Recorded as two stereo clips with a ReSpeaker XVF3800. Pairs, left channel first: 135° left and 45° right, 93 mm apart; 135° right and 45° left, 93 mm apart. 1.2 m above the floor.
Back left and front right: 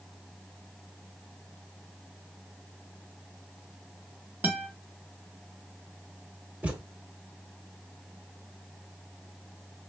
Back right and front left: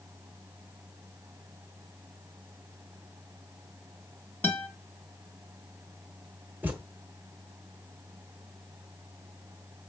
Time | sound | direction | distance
4.4 | a guitar | 90° right | 1.1 m
6.6 | a thud | 10° left | 0.9 m